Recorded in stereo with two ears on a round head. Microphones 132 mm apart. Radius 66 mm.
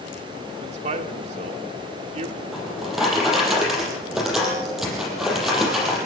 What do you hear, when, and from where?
0.6 s a man speaking: 45° right (ahead or behind), 2 m
2.5 s a drawer: 5° right (ahead or behind), 6.5 m